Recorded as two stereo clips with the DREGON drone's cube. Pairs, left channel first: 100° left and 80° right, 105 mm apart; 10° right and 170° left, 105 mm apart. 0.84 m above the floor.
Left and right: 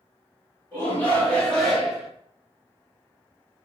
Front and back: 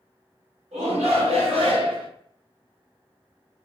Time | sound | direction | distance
0.7 | a shout | 170° left | 1.7 m